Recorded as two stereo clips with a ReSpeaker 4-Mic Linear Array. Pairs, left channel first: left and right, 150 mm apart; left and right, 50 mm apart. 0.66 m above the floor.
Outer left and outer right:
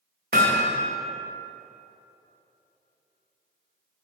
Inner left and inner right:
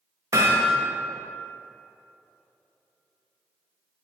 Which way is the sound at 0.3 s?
80° right.